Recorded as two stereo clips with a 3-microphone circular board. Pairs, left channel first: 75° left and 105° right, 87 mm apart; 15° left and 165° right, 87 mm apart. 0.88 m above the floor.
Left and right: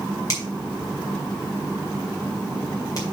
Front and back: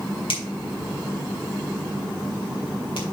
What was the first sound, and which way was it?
A finger snap, 25° left.